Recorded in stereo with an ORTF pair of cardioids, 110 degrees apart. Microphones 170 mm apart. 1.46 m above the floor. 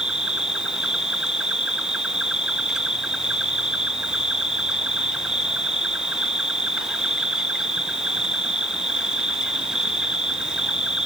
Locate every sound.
0.0 s an insect: 5° right, 1.0 m